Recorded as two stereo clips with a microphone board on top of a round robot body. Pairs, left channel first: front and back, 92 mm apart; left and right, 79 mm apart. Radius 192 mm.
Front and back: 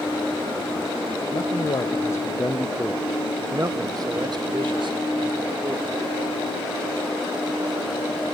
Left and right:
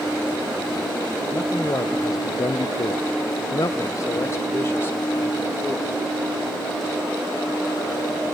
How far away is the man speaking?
About 1.0 m.